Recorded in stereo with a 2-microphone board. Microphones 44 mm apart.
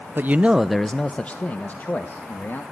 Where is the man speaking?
50° right (ahead or behind), 0.6 m; by 2.6 s 45° left (ahead or behind), 2 m.